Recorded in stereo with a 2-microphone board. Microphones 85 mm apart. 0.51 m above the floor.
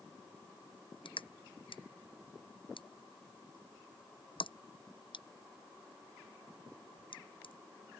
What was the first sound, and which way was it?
Crushing, 80° left.